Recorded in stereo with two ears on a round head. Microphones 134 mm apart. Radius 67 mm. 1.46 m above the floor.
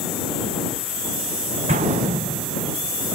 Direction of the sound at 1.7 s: 50° right (ahead or behind).